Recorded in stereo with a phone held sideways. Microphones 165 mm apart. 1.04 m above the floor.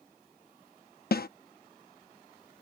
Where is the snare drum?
70° left (ahead or behind).